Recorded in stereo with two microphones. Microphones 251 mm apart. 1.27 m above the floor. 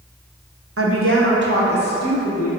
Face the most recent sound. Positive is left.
turn(degrees=-35)  # may be behind; listen again after turning